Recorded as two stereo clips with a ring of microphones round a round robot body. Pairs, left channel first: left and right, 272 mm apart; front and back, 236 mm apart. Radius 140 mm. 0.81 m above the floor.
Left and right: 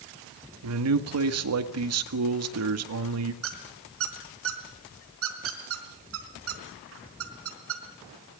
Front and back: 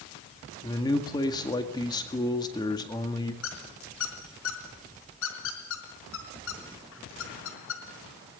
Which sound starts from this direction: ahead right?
A squeak, at 3.4 s.